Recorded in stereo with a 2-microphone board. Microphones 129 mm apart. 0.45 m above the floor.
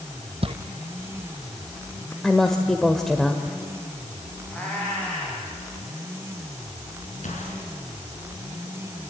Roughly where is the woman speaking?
Centre.